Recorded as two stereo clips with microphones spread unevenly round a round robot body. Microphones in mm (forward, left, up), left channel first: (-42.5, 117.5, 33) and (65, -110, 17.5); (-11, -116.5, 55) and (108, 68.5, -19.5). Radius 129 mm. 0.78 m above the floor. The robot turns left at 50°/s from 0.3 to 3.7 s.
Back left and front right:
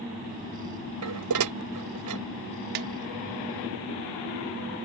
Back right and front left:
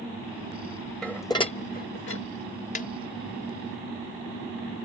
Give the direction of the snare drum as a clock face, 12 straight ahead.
2 o'clock.